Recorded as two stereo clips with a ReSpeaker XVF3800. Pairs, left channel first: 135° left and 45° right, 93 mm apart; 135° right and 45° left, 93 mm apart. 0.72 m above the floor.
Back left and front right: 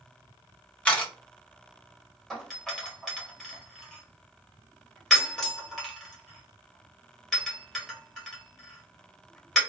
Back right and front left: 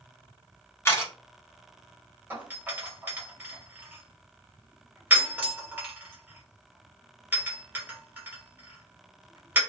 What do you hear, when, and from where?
0.8 s a camera shutter: 160° right, 0.9 m
2.3 s a doorbell: 60° left, 1.1 m